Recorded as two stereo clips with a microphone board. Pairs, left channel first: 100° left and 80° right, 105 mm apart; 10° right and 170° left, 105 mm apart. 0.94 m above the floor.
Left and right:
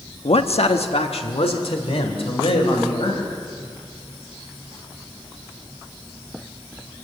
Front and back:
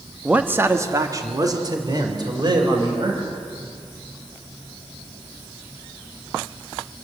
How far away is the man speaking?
About 1.1 m.